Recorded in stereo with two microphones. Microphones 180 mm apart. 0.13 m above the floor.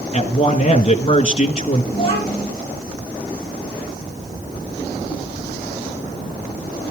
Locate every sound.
0.1 s a man speaking: 35° left (ahead or behind), 1.5 m
1.9 s a child speaking: 30° left (ahead or behind), 6 m